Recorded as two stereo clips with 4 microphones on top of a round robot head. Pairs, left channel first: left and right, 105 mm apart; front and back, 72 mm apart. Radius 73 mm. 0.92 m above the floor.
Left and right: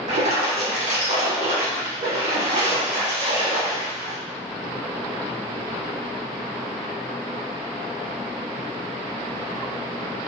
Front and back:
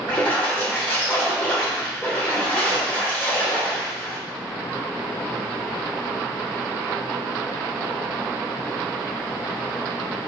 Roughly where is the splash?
Right.